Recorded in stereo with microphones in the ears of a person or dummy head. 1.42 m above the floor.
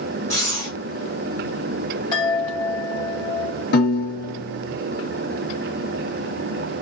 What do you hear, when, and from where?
0.3 s breathing: 20° left (ahead or behind), 0.7 m
2.1 s a chime: 30° left (ahead or behind), 1.3 m
3.7 s a piano: 55° left (ahead or behind), 0.6 m